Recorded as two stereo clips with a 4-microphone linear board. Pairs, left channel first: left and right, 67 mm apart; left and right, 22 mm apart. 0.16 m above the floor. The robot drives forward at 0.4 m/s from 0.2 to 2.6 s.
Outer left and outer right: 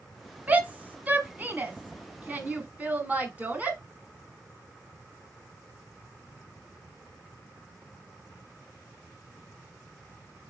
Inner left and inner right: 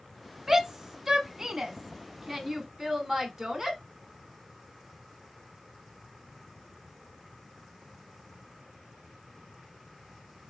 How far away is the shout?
About 1.1 m.